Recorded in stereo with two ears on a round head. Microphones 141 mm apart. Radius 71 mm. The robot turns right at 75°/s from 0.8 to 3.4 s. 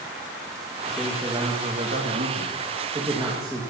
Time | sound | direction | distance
0.9 | a man speaking | 165° left | 1.9 m